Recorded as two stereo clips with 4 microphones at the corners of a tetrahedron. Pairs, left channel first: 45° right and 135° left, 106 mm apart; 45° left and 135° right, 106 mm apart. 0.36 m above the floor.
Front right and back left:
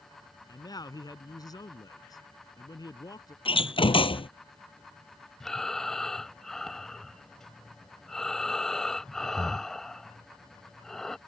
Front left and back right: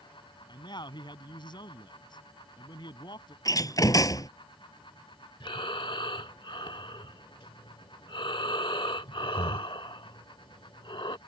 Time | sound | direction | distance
0.5 | a man speaking | 5° left | ?
3.5 | a door slam | 10° right | ?
5.4 | breathing | 40° left | ?